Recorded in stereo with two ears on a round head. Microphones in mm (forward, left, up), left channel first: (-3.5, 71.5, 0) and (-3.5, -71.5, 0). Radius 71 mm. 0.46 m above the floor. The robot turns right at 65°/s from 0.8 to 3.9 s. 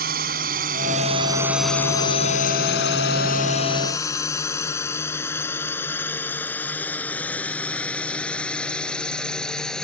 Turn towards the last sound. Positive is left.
turn(degrees=5)  # may be behind; listen again after turning